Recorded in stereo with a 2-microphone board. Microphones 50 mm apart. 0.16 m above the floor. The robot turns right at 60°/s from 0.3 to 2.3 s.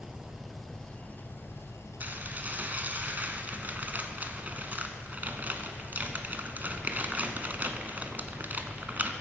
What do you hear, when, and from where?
0.0 s an engine running: 15° right, 1.7 m; by 9.2 s 105° left, 1.7 m
2.0 s dishes clattering: 40° right (ahead or behind), 1.0 m; by 9.1 s 35° right (ahead or behind), 1.0 m